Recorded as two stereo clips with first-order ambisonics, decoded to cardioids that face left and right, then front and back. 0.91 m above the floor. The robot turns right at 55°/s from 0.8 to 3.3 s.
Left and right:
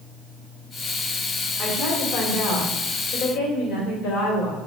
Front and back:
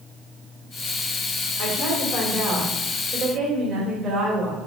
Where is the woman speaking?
20° left, 2.5 m; by 4.6 s 115° left, 2.5 m.